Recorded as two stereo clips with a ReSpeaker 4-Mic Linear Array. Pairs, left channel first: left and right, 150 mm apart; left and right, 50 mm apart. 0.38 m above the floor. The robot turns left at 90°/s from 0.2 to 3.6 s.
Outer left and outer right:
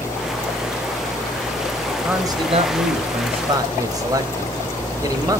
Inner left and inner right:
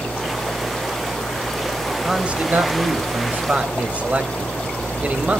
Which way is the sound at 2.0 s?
10° right.